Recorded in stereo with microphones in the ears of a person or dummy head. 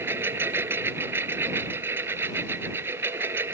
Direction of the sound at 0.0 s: 15° right (ahead or behind).